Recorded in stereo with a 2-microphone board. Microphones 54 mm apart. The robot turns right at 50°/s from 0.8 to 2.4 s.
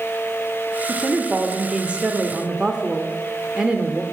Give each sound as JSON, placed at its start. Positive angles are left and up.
{"t": 0.9, "sound": "a woman speaking", "side_deg": -15, "distance_m": 0.8}